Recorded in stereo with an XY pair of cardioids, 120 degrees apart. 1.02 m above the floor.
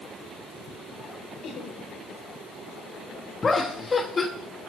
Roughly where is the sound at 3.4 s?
Ahead left.